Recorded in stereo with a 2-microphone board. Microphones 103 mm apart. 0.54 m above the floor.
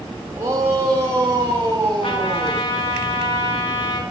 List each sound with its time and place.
0.3 s a shout: 30° right (ahead or behind), 3 m; by 2.7 s 35° right (ahead or behind), 4.5 m
2.0 s a trumpet: 55° left (ahead or behind), 1.9 m